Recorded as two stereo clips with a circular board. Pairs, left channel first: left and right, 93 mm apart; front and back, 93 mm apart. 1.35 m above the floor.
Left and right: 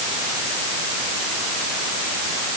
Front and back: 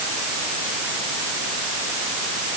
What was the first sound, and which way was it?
Only background noise.